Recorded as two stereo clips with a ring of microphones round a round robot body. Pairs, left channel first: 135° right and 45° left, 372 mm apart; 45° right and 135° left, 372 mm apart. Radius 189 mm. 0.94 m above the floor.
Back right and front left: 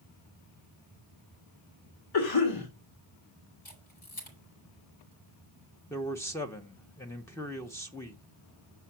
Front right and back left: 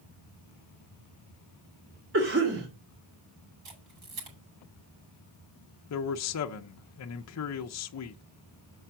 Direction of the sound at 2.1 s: 165° right.